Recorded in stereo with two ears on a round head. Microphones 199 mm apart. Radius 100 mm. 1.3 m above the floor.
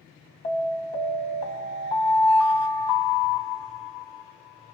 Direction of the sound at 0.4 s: 25° left (ahead or behind).